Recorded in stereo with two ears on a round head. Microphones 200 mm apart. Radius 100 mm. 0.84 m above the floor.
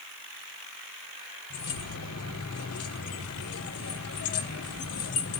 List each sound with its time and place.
1.5 s keys jangling: 75° left (ahead or behind), 1.8 m